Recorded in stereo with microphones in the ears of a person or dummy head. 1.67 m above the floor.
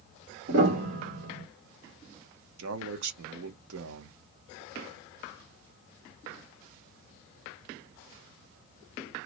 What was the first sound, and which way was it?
A piano, 65° right (ahead or behind).